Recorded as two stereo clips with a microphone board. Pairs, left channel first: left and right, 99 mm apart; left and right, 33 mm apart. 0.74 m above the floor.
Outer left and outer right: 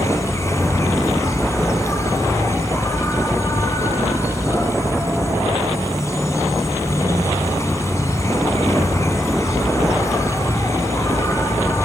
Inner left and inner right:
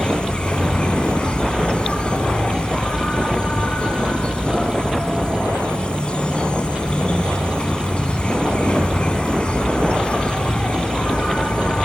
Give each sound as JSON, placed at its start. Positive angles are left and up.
{"t": 0.0, "sound": "an insect", "side_deg": 30, "distance_m": 2.5}